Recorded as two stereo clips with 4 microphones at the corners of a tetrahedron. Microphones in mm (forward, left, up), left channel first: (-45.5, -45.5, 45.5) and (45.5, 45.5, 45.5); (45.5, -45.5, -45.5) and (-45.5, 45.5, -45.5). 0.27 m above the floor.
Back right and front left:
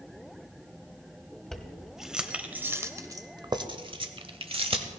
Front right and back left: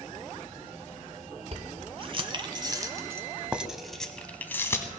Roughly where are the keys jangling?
Behind left.